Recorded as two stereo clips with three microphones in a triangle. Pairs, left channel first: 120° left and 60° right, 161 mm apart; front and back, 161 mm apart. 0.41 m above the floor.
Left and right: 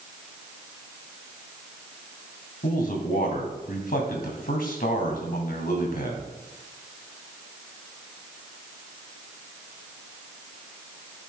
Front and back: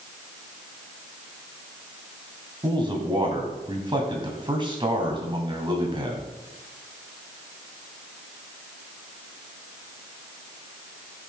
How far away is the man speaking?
About 2.5 m.